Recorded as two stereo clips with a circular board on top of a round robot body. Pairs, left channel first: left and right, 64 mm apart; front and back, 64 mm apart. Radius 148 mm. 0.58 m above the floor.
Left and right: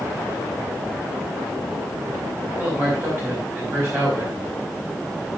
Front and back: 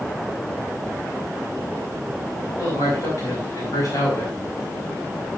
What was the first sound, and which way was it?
A man speaking, 35° right.